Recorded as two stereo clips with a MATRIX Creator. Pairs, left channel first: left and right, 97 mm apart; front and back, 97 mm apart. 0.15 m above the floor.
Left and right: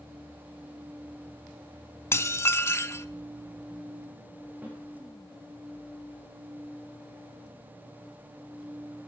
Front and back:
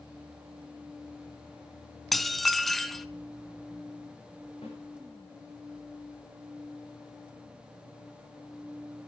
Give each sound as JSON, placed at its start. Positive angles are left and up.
{"t": 2.1, "sound": "dishes clattering", "azimuth_deg": 90, "distance_m": 0.7}
{"t": 4.6, "sound": "a snare drum", "azimuth_deg": -20, "distance_m": 8.0}